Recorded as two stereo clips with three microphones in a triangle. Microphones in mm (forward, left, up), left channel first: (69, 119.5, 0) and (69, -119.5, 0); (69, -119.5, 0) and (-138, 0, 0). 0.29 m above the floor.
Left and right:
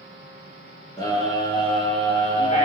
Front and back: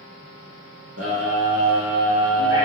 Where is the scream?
160° left, 5 m; by 2.7 s 150° left, 5.5 m.